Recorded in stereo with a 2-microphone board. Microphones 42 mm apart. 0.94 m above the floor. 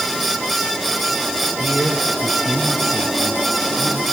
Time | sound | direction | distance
1.6 | a man speaking | 40° left (ahead or behind) | 3.5 m